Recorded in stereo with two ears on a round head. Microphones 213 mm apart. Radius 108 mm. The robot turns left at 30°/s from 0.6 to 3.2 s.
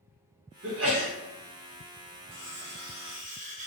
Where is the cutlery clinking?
55° right (ahead or behind), 0.8 m; by 3.7 s 35° right (ahead or behind), 0.8 m.